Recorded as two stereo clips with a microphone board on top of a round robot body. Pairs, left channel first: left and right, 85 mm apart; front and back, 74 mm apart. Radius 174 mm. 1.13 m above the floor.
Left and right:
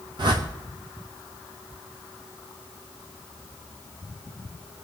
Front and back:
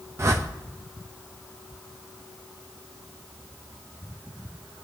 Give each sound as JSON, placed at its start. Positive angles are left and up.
{"t": 0.2, "sound": "a whoosh", "azimuth_deg": -125, "distance_m": 0.7}